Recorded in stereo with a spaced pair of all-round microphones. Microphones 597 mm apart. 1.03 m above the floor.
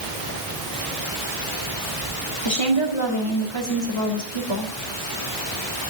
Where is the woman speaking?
45° left (ahead or behind), 3 m.